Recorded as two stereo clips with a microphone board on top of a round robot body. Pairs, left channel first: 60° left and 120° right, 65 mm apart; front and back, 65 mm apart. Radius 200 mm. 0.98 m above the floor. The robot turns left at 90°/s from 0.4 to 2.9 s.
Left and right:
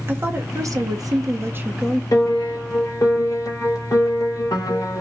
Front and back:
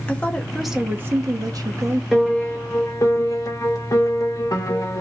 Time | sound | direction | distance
0.1 | a woman speaking | 70° right | 1.1 m
2.1 | a piano | 95° left | 1.5 m